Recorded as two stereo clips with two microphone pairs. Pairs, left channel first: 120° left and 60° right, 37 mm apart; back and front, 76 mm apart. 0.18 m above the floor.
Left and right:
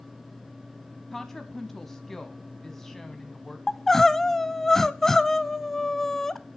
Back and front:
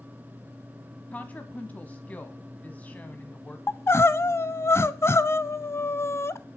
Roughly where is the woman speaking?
Behind.